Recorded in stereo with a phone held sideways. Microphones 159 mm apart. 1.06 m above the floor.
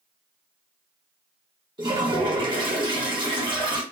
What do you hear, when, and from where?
1.8 s a toilet flushing: 30° right (ahead or behind), 1.0 m